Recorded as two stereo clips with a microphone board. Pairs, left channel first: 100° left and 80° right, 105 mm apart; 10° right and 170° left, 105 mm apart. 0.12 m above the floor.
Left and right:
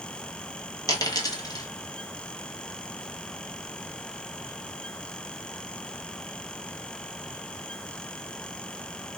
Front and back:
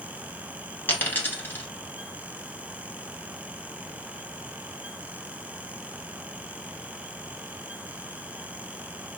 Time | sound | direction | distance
0.9 | a dropped coin | 55° left | 0.9 m